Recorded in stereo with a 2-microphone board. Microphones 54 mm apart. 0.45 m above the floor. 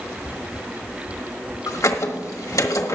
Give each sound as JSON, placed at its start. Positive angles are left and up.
{"t": 1.7, "sound": "a squeak", "side_deg": 75, "distance_m": 1.2}